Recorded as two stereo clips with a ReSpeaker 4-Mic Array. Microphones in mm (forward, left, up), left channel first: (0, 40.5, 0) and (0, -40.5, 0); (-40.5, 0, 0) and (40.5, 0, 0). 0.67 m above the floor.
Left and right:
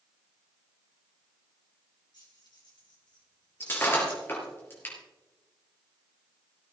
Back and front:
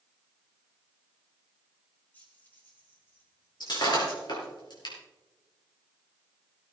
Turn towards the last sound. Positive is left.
turn(degrees=150)